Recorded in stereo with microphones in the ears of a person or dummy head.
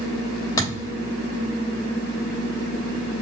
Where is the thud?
25° left (ahead or behind), 3 m.